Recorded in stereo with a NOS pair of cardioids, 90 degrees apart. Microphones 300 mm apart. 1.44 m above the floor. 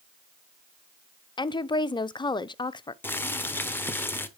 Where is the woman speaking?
15° left, 0.5 m.